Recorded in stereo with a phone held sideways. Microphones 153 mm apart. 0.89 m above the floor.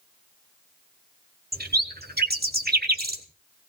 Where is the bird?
75° right (ahead or behind), 1.3 m.